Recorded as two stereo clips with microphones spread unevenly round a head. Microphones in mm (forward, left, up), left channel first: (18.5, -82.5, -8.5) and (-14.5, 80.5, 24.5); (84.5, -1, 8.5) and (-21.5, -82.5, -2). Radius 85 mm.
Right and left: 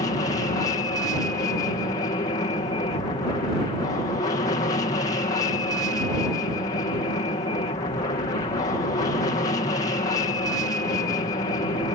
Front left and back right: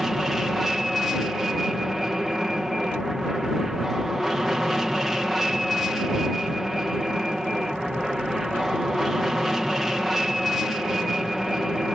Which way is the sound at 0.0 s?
60° right.